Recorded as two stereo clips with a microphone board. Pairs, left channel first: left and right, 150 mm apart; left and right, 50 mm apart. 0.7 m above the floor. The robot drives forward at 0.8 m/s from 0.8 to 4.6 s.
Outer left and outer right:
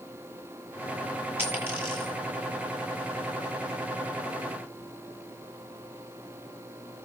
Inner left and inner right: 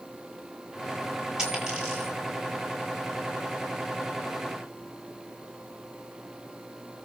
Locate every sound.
1.4 s a dropped coin: 15° right (ahead or behind), 9 m